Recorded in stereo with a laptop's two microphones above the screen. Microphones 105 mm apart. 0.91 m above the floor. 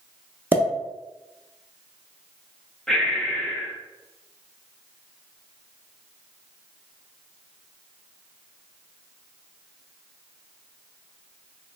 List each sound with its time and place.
0.5 s a pop: 20° right (ahead or behind), 0.5 m
2.9 s breathing: 5° left (ahead or behind), 0.5 m